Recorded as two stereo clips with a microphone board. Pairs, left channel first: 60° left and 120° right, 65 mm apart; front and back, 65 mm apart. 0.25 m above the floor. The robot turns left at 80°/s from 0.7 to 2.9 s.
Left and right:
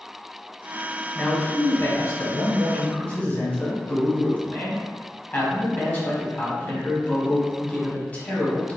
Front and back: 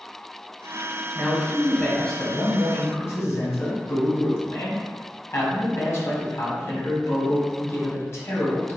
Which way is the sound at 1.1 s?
150° left.